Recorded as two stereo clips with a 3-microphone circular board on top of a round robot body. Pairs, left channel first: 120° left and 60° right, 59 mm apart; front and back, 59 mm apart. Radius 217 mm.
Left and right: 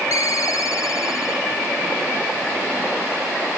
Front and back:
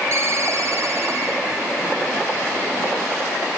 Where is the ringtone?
140° left, 2.0 m.